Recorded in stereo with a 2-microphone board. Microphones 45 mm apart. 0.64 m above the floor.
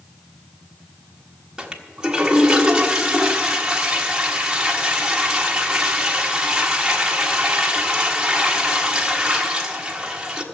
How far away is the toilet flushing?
About 1.3 m.